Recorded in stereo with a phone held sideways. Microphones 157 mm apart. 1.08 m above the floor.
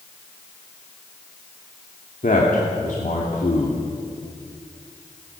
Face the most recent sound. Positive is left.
turn(degrees=55)  # may be behind; listen again after turning